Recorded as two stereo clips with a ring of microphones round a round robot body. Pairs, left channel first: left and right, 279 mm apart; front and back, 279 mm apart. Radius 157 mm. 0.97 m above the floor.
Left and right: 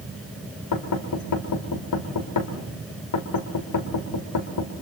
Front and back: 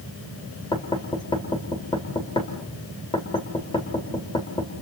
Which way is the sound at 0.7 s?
75° left.